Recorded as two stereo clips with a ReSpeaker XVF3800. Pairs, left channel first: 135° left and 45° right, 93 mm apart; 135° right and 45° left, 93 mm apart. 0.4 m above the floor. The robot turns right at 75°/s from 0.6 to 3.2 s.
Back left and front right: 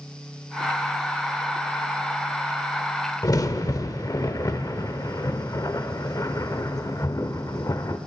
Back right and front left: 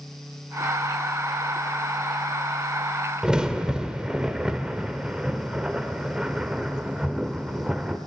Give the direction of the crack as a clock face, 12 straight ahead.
8 o'clock.